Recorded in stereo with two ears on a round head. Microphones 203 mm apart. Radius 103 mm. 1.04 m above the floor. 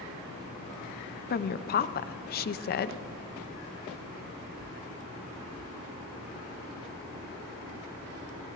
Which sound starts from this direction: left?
A woman speaking, at 1.3 s.